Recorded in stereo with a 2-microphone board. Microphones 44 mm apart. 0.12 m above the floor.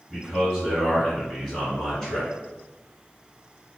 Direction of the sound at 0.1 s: 15° left (ahead or behind).